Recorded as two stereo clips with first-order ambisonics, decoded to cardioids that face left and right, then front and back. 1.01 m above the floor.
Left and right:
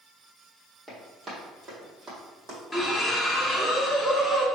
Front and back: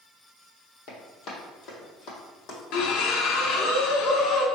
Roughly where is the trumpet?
No trumpet in this recording.